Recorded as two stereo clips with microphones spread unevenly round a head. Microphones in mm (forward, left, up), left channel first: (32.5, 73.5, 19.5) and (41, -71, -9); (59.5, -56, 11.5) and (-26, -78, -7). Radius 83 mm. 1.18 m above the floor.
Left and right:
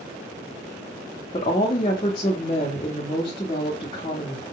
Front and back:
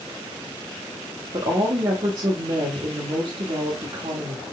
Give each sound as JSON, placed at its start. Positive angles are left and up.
{"t": 1.3, "sound": "a woman speaking", "azimuth_deg": 160, "distance_m": 0.9}